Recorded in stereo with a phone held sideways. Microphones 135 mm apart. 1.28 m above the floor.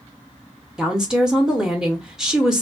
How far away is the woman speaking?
About 0.6 m.